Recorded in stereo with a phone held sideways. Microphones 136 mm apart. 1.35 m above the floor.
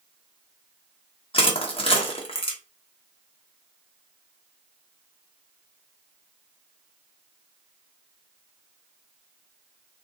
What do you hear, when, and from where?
1.3 s crushing: 45° left (ahead or behind), 0.9 m